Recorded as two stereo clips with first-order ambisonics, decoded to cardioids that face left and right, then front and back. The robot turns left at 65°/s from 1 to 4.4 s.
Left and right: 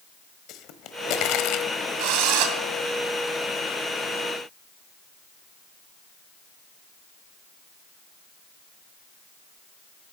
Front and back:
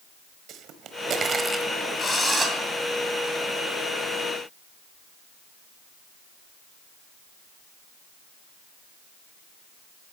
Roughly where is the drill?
Right.